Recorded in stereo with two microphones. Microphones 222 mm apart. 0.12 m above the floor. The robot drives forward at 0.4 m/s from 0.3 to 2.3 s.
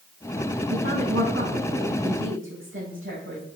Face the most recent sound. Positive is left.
turn(degrees=-75)  # may be behind; listen again after turning